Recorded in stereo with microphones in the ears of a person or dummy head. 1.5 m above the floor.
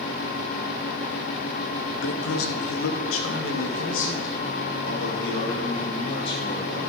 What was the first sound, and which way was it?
A man speaking, 80° left.